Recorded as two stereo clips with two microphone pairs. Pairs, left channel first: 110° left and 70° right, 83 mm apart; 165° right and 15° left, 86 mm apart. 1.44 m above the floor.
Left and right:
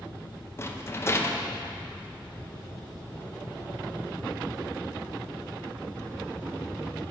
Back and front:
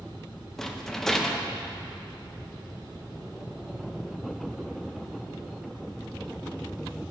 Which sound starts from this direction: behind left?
A rattle, at 0.6 s.